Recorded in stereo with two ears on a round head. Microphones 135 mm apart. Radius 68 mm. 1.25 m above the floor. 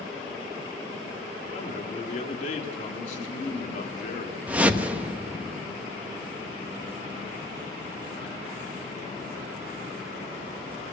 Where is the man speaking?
50° left (ahead or behind), 3 m.